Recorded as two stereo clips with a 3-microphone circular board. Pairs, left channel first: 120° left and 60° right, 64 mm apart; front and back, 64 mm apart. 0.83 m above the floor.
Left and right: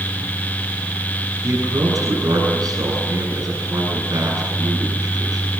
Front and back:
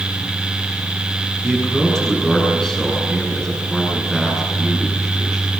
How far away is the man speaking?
About 9.5 m.